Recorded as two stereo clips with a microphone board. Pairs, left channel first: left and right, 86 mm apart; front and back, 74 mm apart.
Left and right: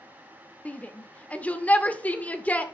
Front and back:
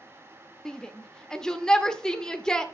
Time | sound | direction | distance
0.7 | a shout | 60° left | 0.9 m